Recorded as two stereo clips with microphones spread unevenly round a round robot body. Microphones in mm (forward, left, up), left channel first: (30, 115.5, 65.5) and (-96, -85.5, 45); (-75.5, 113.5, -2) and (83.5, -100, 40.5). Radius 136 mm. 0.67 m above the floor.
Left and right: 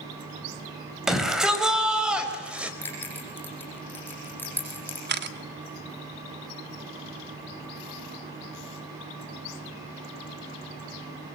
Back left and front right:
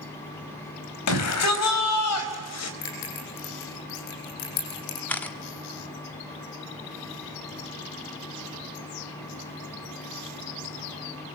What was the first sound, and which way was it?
A shout, 150° left.